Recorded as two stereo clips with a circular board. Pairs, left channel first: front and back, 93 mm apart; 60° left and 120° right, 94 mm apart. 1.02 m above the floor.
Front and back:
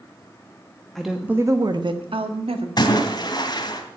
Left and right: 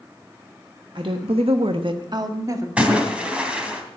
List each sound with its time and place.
0.9 s a woman speaking: 85° right, 1.3 m; by 2.7 s 175° right, 2 m
2.8 s a splash: 40° right, 3 m